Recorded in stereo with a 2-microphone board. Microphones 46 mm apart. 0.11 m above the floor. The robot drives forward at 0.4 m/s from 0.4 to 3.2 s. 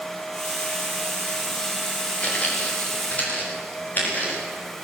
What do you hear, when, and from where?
2.2 s footsteps: 30° left (ahead or behind), 5.5 m; by 4.4 s 40° left (ahead or behind), 9 m